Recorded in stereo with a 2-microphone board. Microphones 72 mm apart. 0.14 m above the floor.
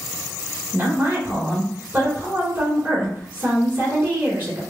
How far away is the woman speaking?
About 1.5 m.